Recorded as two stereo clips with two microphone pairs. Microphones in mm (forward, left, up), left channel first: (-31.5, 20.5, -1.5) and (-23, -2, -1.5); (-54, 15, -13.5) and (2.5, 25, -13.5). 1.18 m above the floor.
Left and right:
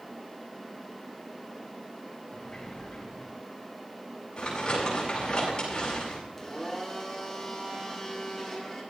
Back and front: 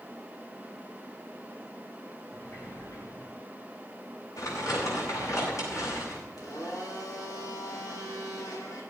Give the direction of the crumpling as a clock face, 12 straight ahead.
6 o'clock.